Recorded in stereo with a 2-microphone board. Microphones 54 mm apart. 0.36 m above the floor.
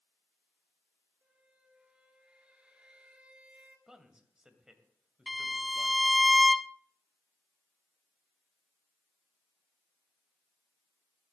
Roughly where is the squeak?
Right.